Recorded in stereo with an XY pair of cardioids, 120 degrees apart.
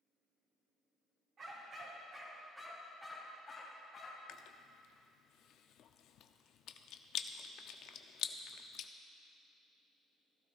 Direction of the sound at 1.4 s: 45° right.